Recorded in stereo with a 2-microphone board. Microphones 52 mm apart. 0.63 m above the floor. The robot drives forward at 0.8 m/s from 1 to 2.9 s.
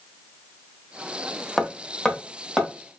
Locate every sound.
1.6 s hammering: 10° left (ahead or behind), 0.6 m; by 2.7 s 5° left (ahead or behind), 1.4 m